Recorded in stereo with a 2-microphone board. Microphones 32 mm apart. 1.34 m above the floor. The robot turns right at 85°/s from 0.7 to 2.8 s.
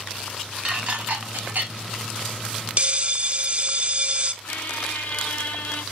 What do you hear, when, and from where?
0.7 s dishes clattering: 40° right (ahead or behind), 3.5 m; by 1.7 s 55° right (ahead or behind), 3.5 m
2.8 s a bell: 35° right (ahead or behind), 0.7 m
4.4 s a squeak: 75° left (ahead or behind), 1.2 m